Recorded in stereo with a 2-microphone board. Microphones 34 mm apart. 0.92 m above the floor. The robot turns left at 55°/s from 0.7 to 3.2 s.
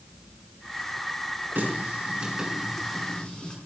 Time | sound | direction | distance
1.6 | a running tap | 65° right (ahead or behind) | 6.5 m